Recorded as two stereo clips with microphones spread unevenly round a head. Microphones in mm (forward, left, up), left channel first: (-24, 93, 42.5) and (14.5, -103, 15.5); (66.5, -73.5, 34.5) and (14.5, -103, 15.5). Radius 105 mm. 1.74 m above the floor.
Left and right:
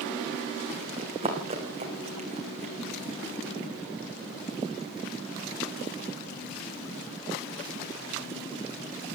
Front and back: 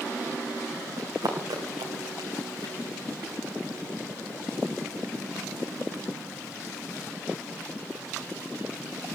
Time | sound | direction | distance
1.0 | running footsteps | 145° right | 7 m